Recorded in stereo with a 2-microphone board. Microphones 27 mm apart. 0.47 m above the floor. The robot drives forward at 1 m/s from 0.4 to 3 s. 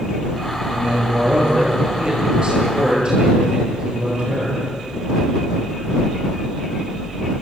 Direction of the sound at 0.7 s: 45° right (ahead or behind).